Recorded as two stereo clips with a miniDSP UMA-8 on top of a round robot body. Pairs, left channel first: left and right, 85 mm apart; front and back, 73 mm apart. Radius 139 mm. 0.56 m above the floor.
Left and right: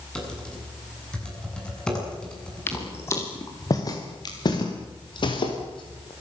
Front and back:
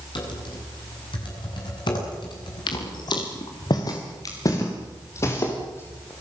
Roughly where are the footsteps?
Ahead left.